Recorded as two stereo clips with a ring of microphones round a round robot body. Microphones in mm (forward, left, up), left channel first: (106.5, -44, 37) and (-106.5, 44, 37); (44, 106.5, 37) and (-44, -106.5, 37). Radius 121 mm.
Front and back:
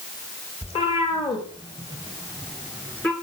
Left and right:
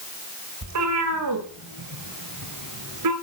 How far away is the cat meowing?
About 5.5 m.